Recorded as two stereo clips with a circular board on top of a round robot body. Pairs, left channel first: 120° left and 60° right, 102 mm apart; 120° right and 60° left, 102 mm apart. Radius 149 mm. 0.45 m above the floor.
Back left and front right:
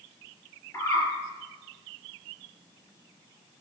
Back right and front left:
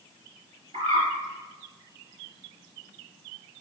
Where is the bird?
65° left, 3.5 m.